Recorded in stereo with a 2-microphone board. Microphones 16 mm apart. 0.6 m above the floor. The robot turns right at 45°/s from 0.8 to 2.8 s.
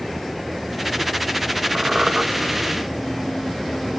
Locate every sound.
1.8 s a squeak: 65° right (ahead or behind), 1.6 m; by 2.2 s 50° right (ahead or behind), 1.6 m